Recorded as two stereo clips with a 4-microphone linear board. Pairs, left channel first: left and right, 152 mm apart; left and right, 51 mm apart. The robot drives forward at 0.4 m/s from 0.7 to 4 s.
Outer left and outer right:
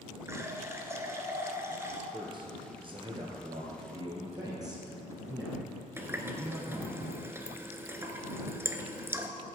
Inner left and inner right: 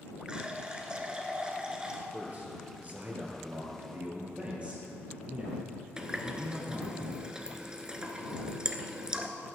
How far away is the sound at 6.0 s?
About 0.9 m.